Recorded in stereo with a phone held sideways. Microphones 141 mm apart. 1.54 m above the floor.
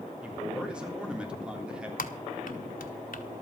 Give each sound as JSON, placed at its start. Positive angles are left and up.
{"t": 0.2, "sound": "a man speaking", "side_deg": -5, "distance_m": 3.5}
{"t": 2.0, "sound": "typing on a keyboard", "side_deg": 75, "distance_m": 1.3}